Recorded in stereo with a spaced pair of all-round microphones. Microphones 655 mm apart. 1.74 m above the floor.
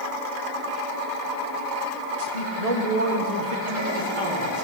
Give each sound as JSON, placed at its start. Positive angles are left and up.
{"t": 2.2, "sound": "a man speaking", "side_deg": -70, "distance_m": 1.6}